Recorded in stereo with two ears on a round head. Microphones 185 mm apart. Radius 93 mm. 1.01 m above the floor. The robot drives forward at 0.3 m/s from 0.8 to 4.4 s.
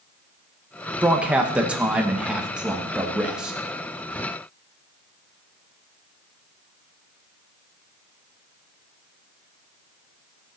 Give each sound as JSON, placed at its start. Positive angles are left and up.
{"t": 1.0, "sound": "a man speaking", "side_deg": -5, "distance_m": 1.0}